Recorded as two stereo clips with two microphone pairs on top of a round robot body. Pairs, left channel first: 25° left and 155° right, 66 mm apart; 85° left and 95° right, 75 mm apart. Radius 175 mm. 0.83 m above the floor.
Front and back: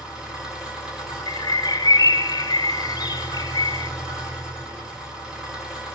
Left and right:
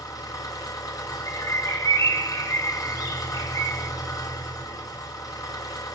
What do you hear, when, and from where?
0.0 s an engine running: 125° left, 4 m
1.3 s a bird: 45° left, 0.7 m